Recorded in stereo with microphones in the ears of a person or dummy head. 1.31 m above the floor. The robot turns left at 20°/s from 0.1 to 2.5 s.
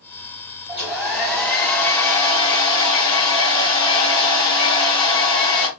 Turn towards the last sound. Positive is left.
turn(degrees=150)